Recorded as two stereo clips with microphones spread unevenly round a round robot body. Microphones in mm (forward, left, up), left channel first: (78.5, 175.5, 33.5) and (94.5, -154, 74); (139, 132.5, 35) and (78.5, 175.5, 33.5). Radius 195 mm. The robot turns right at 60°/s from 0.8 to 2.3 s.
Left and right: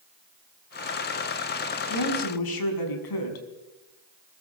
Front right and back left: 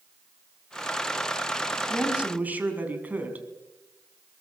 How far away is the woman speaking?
About 5.5 m.